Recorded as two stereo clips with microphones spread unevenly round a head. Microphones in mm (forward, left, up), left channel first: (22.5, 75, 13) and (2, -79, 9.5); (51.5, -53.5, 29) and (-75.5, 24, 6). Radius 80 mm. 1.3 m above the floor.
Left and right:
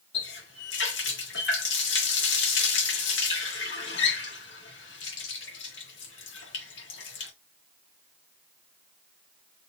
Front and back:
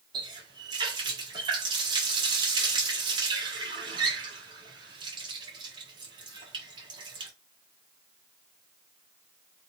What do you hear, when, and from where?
0.1 s a running tap: 80° left, 1.6 m